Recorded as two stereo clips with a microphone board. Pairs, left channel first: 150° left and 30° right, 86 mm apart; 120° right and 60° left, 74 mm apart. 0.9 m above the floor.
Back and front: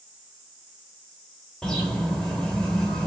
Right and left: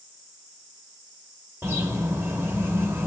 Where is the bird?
75° left, 0.6 m.